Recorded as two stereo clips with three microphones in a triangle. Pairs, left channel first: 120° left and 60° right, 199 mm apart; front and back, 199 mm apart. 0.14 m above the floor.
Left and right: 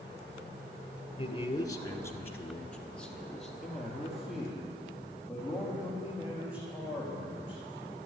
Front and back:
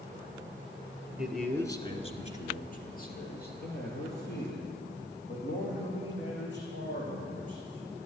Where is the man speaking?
100° left, 1.2 m; by 8.1 s 25° left, 7.5 m.